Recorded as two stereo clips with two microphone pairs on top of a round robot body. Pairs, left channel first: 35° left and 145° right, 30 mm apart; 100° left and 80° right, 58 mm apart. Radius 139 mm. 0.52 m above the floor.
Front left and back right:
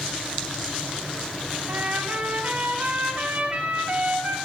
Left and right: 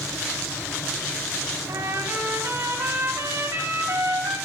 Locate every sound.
1.7 s a trumpet: 115° right, 2.5 m